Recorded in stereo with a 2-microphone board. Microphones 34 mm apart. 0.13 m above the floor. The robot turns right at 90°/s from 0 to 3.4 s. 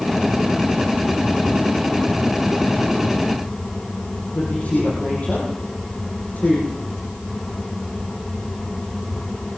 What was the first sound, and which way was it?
A woman speaking, 45° left (ahead or behind).